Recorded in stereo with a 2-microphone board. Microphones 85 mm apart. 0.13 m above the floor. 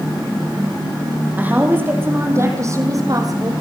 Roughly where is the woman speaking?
Centre.